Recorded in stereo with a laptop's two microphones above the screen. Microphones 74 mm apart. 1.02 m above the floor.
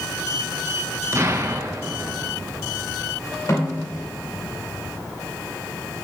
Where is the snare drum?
45° left (ahead or behind), 2.5 m.